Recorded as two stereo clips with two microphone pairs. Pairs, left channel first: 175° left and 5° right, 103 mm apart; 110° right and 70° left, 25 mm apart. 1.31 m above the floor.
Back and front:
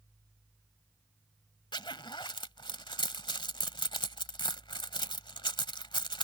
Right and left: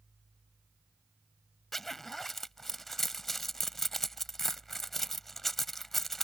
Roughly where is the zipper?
Behind.